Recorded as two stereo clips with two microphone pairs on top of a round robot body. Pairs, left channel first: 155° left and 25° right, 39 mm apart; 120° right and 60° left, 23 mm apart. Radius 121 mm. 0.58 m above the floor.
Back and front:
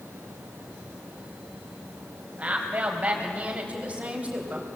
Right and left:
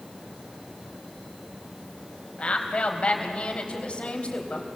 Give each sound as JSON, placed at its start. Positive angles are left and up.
{"t": 2.4, "sound": "a woman speaking", "azimuth_deg": -85, "distance_m": 4.0}